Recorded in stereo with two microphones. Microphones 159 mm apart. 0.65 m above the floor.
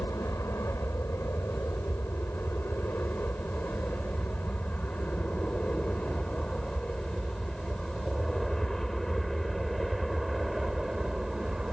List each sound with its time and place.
0.0 s an aircraft: 15° left (ahead or behind); by 11.7 s centre (ahead or behind)